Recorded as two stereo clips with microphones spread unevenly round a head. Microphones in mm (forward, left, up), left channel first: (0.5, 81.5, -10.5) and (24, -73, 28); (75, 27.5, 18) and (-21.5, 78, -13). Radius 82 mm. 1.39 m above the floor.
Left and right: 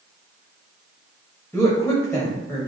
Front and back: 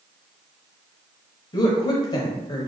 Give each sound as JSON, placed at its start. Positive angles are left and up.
{"t": 1.5, "sound": "a woman speaking", "azimuth_deg": 20, "distance_m": 0.9}